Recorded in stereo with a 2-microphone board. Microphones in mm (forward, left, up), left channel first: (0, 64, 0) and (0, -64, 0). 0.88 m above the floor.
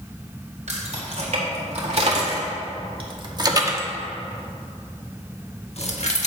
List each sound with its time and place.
0.7 s keys jangling: 65° right (ahead or behind), 2.5 m; by 6.3 s 65° left (ahead or behind), 1.4 m